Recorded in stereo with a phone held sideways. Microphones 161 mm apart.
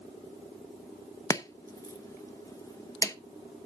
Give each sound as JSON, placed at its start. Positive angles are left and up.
{"t": 1.3, "sound": "chopping", "side_deg": 20, "distance_m": 0.9}